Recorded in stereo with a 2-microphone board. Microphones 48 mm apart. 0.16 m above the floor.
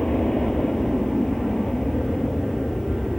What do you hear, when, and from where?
0.0 s an aircraft: 10° left (ahead or behind)